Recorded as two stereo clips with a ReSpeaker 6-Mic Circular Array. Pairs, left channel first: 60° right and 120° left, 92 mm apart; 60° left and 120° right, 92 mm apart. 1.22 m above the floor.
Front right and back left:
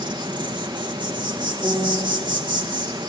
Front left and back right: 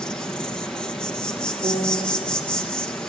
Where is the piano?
165° right, 2.5 m.